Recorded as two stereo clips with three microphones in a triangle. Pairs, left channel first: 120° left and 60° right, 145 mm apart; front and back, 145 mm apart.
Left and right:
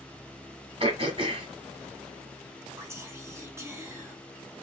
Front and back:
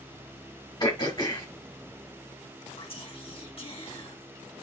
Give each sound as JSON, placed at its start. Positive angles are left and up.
{"t": 0.8, "sound": "throat clearing", "azimuth_deg": -40, "distance_m": 2.0}
{"t": 2.8, "sound": "whispering", "azimuth_deg": 0, "distance_m": 1.9}